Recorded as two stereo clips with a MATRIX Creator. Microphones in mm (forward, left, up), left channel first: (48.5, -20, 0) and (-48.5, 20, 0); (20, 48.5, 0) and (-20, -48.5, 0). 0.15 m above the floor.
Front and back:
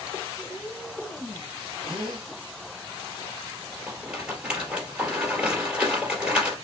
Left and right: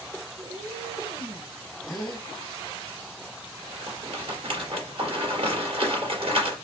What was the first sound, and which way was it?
A cat meowing, 110° right.